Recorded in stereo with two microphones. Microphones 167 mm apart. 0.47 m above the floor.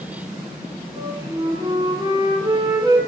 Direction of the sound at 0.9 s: 25° right (ahead or behind).